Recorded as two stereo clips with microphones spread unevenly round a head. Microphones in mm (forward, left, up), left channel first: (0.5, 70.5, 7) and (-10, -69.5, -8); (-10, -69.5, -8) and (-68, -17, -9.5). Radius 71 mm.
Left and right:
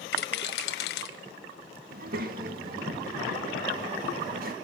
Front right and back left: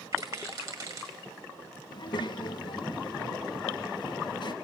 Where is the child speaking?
65° right, 1.6 m.